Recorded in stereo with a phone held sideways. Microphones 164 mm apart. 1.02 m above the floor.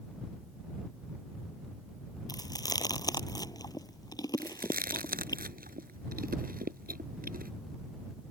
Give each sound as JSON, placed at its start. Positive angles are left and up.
{"t": 2.3, "sound": "chewing", "side_deg": 25}
{"t": 4.4, "sound": "chewing", "side_deg": -65}